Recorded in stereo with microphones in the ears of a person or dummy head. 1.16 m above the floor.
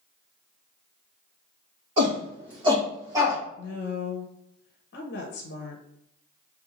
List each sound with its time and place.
2.0 s a shout: 35° right (ahead or behind), 1.8 m; by 3.4 s 15° right (ahead or behind), 1.2 m
3.6 s a woman speaking: 60° left (ahead or behind), 0.7 m